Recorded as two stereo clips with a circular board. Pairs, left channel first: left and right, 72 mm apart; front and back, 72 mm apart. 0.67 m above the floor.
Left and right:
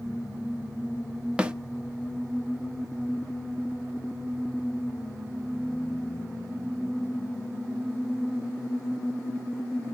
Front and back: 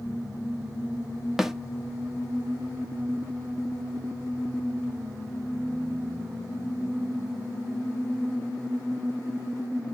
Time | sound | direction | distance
1.4 | a snare drum | 105° right | 0.7 m